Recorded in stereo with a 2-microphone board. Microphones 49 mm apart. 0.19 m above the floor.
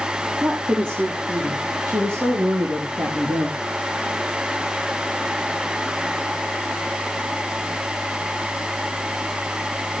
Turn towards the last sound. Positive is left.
turn(degrees=-70)  # may be behind; listen again after turning